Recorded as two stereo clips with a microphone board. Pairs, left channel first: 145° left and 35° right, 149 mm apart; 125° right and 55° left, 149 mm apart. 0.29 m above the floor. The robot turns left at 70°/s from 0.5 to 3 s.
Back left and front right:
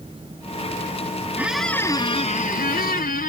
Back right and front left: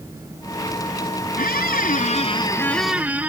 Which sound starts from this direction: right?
A squeak, at 1.4 s.